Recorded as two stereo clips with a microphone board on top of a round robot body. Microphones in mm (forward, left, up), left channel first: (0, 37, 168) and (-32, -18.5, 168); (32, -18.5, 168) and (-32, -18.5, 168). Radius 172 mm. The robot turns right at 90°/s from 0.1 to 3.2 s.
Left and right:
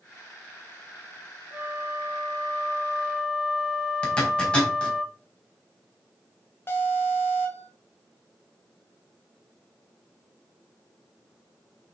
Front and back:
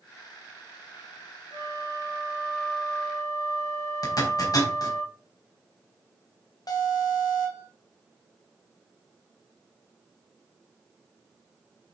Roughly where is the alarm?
Ahead.